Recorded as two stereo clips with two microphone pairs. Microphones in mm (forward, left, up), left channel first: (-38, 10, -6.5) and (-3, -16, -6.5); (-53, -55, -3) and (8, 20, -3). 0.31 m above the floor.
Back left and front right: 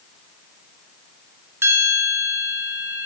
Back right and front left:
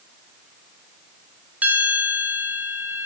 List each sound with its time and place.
1.6 s a bell: 25° right, 1.5 m